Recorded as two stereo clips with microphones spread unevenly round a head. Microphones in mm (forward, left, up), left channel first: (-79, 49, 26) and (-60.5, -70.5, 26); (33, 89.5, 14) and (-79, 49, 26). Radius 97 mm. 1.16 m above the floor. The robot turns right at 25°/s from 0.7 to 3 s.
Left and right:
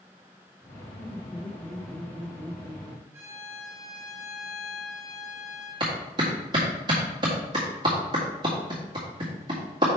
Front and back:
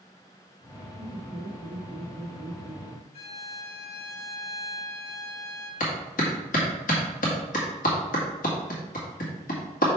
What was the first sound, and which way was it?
Laughter, 170° left.